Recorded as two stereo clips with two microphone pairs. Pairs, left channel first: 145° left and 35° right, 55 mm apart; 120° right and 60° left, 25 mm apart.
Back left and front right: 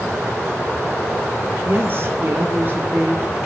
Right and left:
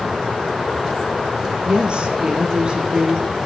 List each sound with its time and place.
1.6 s a woman speaking: 15° left, 5.5 m